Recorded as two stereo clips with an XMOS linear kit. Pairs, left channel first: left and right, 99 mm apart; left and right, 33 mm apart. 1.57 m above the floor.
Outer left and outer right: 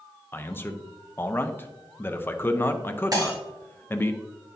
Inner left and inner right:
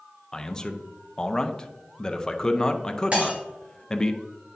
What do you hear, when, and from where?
0.3 s a man speaking: 20° left (ahead or behind), 0.6 m
3.1 s breaking glass: 40° right (ahead or behind), 3 m